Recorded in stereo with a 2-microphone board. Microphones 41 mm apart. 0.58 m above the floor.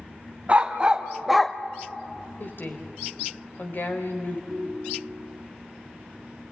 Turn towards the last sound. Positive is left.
turn(degrees=-20)  # may be behind; listen again after turning